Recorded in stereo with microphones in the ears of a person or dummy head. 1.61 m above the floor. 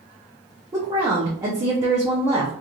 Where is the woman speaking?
20° right (ahead or behind), 0.6 m.